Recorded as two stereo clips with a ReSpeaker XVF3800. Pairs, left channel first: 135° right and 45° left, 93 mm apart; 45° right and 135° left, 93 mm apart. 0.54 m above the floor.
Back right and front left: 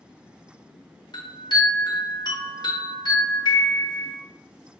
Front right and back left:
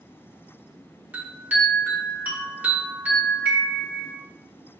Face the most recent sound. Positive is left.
turn(degrees=-155)